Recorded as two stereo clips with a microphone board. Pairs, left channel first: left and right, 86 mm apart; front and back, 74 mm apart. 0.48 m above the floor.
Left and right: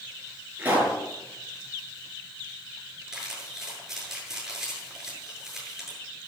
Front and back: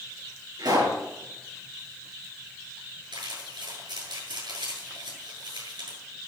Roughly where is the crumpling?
Behind.